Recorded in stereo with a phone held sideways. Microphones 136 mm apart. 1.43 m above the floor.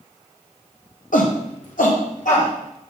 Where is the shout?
75° left (ahead or behind), 1.0 m; by 2.5 s 70° left (ahead or behind), 1.8 m.